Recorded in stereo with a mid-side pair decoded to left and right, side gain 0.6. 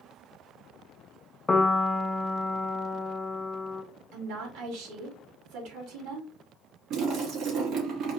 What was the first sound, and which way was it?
A piano, 25° left.